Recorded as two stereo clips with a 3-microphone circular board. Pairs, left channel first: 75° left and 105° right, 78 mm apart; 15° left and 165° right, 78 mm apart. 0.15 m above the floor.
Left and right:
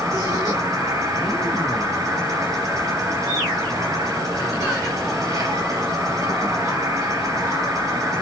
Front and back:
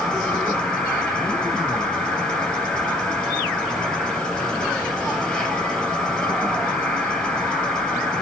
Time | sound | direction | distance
0.0 | an insect | 65° right | 4 m